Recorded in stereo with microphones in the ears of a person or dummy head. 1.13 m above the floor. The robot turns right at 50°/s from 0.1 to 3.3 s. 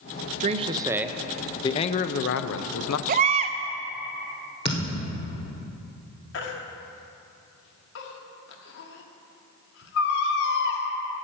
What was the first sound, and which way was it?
A man speaking, 35° right.